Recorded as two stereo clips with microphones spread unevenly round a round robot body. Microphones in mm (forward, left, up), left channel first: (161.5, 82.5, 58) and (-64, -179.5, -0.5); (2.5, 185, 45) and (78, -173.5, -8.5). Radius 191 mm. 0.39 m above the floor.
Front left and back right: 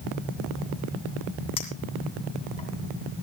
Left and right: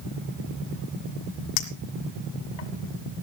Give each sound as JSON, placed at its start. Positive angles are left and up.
{"t": 1.6, "sound": "a clink", "azimuth_deg": 125, "distance_m": 2.0}